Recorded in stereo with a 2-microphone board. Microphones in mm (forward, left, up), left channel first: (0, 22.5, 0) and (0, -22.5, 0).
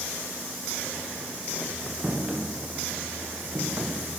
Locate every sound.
2.0 s footsteps: 20° right (ahead or behind), 5 m; by 4.2 s 55° right (ahead or behind), 4 m